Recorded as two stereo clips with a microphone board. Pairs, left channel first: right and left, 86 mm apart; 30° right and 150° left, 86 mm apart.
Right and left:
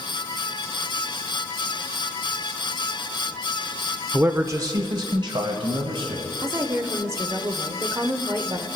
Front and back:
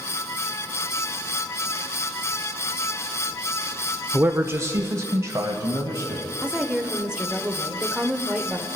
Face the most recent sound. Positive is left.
turn(degrees=80)